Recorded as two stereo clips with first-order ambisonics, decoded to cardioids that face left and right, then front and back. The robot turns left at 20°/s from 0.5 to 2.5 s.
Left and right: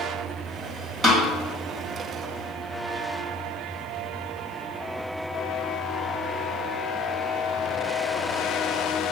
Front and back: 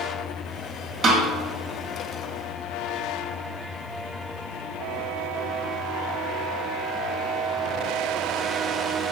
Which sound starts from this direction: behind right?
A snare drum, at 1.0 s.